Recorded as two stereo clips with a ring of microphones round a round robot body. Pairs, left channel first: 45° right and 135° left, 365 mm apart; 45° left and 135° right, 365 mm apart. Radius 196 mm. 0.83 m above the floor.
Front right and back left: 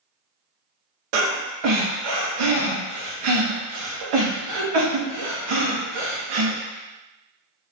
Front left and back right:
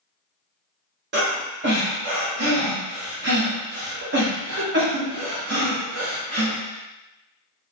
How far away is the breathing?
About 0.6 m.